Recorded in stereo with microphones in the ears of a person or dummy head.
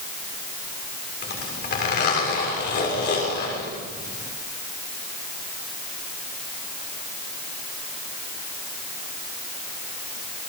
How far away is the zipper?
About 7 m.